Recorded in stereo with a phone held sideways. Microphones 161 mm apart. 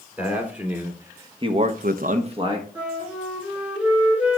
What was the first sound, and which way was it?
A man speaking, 10° right (ahead or behind).